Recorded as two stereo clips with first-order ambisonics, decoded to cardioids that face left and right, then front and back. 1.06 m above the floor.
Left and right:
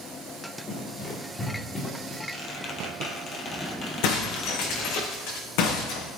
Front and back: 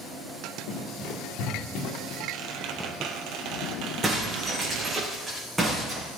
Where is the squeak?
150° left, 2.5 m.